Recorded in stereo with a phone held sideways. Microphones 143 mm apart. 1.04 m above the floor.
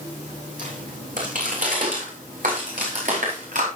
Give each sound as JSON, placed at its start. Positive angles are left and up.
{"t": 0.6, "sound": "footsteps", "side_deg": -65, "distance_m": 3.0}